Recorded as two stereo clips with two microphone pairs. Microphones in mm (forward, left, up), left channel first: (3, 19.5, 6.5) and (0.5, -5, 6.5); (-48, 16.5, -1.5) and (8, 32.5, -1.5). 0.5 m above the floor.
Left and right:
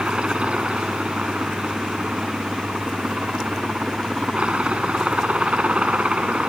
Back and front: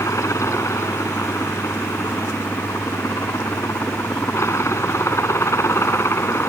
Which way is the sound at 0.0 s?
135° right.